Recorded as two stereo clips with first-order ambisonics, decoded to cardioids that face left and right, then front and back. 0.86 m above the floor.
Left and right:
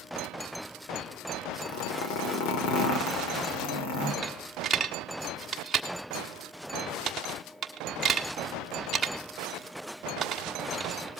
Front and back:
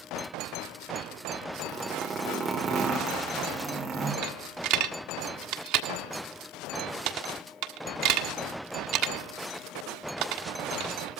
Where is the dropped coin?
160° right, 1.5 m.